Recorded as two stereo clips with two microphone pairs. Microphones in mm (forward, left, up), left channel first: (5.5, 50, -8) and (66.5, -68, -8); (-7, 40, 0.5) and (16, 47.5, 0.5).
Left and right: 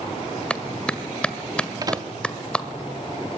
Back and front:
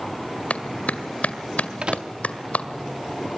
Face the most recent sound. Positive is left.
turn(degrees=-10)